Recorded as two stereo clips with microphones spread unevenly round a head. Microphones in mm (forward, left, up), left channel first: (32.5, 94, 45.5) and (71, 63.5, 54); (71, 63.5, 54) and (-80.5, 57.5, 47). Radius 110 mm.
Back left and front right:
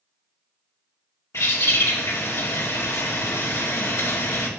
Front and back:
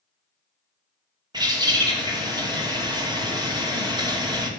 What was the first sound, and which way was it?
A bird, 120° left.